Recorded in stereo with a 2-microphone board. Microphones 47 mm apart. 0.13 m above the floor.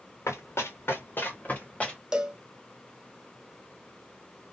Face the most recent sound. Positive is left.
turn(degrees=-15)  # may be behind; listen again after turning